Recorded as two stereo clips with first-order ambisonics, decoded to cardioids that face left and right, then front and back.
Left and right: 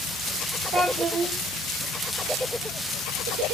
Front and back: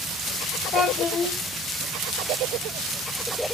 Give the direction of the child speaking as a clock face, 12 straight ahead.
1 o'clock.